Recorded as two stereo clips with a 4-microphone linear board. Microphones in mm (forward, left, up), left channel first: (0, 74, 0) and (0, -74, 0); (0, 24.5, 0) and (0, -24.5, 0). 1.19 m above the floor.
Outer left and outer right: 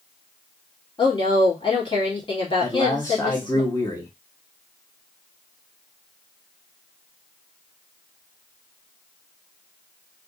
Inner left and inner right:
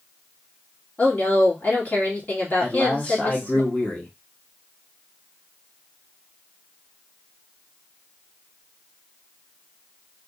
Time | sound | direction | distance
1.0 | a woman speaking | 35° left (ahead or behind) | 2 m
2.6 | a man speaking | 20° left (ahead or behind) | 1.1 m